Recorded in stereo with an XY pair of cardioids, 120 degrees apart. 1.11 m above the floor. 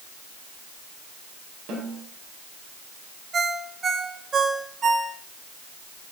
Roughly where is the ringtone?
Ahead right.